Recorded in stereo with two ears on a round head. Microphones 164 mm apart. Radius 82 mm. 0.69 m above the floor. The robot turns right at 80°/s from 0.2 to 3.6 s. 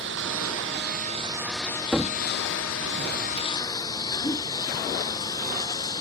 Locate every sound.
0.0 s a lawn mower: 70° right (ahead or behind); by 6.0 s 25° left (ahead or behind)
1.9 s a cupboard door: centre (ahead or behind); by 3.5 s 30° right (ahead or behind)
4.2 s a whoosh: 15° left (ahead or behind)